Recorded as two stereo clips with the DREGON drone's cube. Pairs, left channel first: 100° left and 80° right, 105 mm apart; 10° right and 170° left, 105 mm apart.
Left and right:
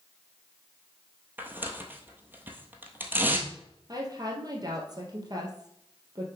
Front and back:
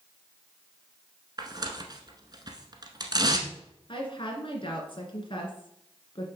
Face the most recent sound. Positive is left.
turn(degrees=-35)